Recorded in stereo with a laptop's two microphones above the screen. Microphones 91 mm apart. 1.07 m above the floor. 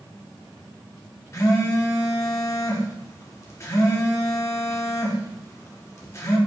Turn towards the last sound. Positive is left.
turn(degrees=35)  # may be behind; listen again after turning